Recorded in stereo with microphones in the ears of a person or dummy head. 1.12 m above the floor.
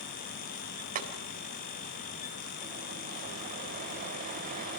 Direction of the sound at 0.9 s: 45° right (ahead or behind).